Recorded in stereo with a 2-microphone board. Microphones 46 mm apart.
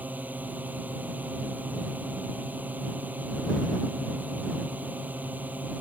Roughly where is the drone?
Right.